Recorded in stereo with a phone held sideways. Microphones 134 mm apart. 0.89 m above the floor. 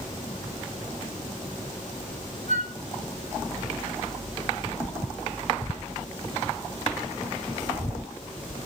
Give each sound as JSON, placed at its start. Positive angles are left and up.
{"t": 2.5, "sound": "a flute", "side_deg": -85, "distance_m": 3.5}